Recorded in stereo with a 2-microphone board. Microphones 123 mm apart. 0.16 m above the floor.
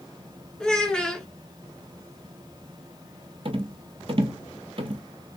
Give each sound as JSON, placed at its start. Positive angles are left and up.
{"t": 0.6, "sound": "a child speaking", "side_deg": 5, "distance_m": 1.1}
{"t": 3.5, "sound": "a rattle", "side_deg": -50, "distance_m": 0.6}